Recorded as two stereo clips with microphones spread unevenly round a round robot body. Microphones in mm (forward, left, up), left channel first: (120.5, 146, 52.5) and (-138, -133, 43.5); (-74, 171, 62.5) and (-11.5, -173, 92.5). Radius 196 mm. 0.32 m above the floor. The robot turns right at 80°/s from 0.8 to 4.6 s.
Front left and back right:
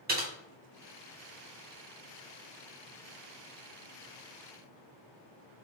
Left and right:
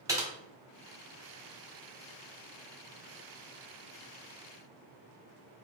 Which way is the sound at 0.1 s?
160° right.